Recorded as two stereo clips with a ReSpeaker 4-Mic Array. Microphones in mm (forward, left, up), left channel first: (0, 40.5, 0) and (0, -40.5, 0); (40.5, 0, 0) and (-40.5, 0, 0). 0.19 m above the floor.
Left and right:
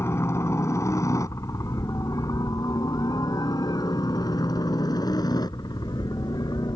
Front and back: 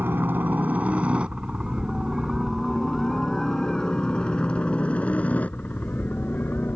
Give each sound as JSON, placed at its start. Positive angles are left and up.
{"t": 0.0, "sound": "a helicopter", "azimuth_deg": 130}